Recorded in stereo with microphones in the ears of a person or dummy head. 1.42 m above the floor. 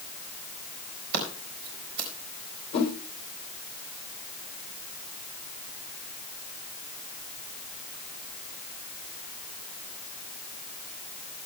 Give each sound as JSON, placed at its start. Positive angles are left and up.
{"t": 1.1, "sound": "scissors", "side_deg": -50, "distance_m": 4.0}
{"t": 2.7, "sound": "a whoosh", "side_deg": 45, "distance_m": 3.5}